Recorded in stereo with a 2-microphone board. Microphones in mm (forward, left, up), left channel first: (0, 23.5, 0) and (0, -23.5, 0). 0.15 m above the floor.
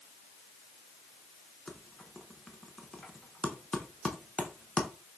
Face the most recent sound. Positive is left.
turn(degrees=20)  # may be behind; listen again after turning